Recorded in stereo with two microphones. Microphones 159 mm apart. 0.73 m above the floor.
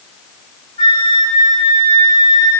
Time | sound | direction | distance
0.8 | a flute | 80° right | 3.5 m